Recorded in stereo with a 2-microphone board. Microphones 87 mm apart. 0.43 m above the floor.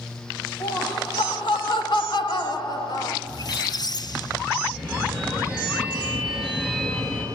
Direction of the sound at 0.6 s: 65° left (ahead or behind).